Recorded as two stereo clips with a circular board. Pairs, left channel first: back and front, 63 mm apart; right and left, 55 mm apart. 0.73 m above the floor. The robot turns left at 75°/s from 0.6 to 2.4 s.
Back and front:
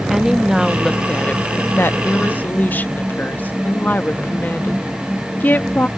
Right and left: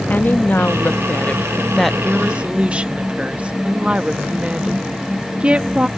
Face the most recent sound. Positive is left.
turn(degrees=145)